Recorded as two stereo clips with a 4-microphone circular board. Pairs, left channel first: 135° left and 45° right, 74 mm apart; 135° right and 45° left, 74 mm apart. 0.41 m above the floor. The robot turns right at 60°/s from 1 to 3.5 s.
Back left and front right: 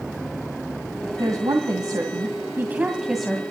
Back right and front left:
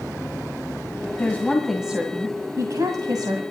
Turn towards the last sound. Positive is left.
turn(degrees=60)